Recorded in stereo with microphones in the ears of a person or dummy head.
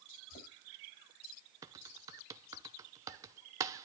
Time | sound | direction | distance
0.3 | knocking | 45° left (ahead or behind) | 8 m
1.6 | typing on a keyboard | 15° right (ahead or behind) | 0.8 m